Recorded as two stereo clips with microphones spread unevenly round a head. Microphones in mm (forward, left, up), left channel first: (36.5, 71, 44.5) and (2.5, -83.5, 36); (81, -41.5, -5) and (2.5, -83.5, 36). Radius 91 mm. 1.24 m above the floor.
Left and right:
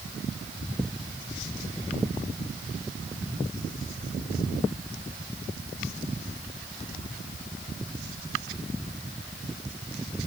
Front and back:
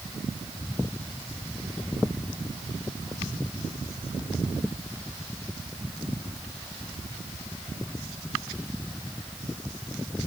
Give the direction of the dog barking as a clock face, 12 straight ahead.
I don't hear a dog barking.